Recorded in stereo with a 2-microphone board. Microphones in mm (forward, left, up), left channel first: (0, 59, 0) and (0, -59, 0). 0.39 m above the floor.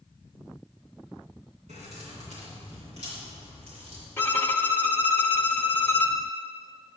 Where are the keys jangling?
75° right (ahead or behind), 2.5 m; by 4.1 s 65° right (ahead or behind), 6 m.